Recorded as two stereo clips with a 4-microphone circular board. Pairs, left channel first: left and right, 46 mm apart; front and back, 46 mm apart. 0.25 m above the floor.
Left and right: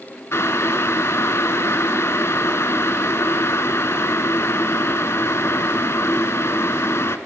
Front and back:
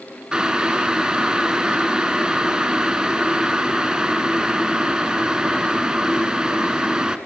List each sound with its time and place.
0.3 s boiling: 105° left, 0.7 m